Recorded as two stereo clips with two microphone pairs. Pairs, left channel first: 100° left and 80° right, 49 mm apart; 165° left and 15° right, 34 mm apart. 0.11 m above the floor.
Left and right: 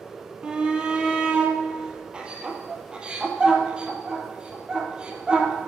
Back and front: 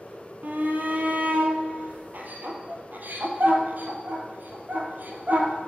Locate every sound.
0.4 s a shout: 10° right, 3 m